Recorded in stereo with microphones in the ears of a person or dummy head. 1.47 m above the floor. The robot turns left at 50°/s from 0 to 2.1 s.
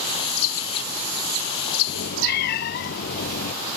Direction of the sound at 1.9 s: 75° left (ahead or behind).